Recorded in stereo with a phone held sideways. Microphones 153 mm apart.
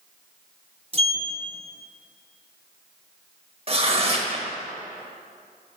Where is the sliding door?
40° right (ahead or behind), 0.9 m.